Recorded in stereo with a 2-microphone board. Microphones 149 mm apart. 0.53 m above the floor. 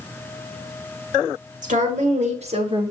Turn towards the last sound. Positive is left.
turn(degrees=-30)  # may be behind; listen again after turning